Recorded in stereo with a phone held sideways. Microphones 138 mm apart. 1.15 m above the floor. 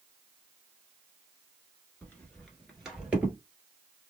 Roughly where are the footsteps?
Centre.